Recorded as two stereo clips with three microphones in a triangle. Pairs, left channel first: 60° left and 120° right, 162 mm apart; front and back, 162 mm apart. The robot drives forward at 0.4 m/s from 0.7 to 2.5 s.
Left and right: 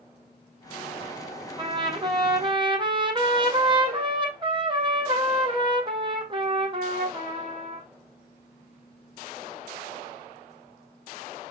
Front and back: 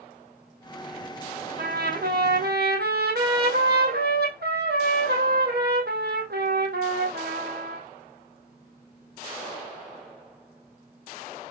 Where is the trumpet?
Straight behind, 1.5 m.